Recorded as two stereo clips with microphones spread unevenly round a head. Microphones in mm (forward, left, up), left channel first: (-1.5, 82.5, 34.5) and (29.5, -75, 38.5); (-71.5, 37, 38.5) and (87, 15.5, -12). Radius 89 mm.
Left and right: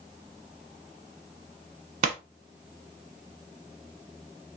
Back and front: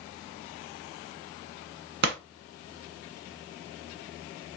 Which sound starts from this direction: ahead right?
A pop, at 2.0 s.